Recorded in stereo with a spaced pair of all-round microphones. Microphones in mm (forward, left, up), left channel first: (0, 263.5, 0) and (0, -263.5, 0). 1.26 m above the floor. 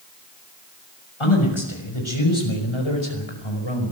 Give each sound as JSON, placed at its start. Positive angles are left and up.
{"t": 1.2, "sound": "a man speaking", "side_deg": 65, "distance_m": 6.0}